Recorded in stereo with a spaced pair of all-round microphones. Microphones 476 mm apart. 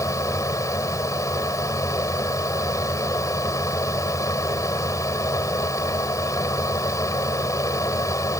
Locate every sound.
0.0 s a fan: 5° left (ahead or behind)